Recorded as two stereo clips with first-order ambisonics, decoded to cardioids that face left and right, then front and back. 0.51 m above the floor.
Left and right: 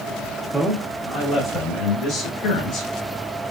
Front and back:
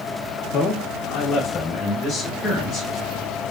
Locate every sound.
0.5 s a man speaking: 10° right, 0.8 m; by 2.9 s 80° left, 1.4 m